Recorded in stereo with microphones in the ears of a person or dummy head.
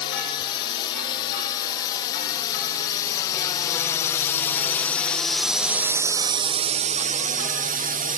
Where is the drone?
25° left (ahead or behind); by 8.2 s 35° right (ahead or behind).